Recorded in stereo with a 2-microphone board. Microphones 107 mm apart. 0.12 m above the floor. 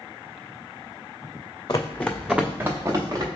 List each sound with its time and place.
1.7 s running footsteps: 35° left (ahead or behind), 0.6 m; by 3.3 s 40° right (ahead or behind), 1.2 m